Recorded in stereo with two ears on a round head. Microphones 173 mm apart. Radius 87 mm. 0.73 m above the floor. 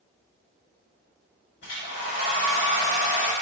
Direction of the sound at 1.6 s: 65° left (ahead or behind).